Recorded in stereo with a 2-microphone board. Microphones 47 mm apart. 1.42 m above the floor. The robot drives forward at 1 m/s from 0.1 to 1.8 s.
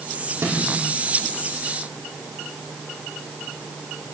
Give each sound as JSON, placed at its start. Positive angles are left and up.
{"t": 0.4, "sound": "a snare drum", "side_deg": -65, "distance_m": 4.5}